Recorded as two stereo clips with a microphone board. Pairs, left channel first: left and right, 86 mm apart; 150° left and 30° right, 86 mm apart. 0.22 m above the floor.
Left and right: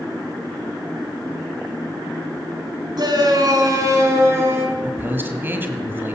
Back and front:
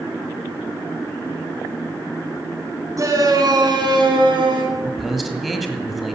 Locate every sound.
3.0 s a shout: 70° right, 3 m; by 4.6 s 30° right, 4 m
4.7 s a man speaking: 120° right, 1.6 m